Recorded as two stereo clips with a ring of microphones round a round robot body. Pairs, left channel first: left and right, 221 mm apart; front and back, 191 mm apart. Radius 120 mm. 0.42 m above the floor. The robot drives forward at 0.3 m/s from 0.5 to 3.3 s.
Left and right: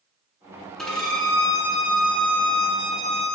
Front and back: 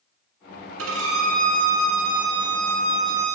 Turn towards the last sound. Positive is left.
turn(degrees=180)